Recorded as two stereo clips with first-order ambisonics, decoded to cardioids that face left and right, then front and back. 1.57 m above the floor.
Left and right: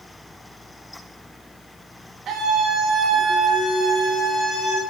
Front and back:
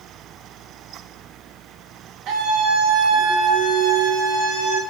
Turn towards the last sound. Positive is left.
turn(degrees=-155)